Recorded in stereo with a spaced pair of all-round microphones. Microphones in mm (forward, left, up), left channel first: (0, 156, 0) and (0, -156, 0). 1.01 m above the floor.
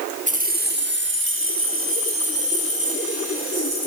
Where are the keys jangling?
25° right (ahead or behind), 1.0 m; by 3.9 s 50° right (ahead or behind), 3.5 m.